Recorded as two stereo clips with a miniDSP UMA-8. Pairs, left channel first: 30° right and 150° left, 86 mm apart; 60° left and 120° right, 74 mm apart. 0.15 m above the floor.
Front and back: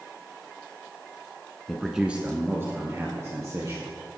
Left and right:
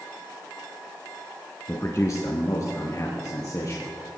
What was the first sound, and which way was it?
A man speaking, 45° left.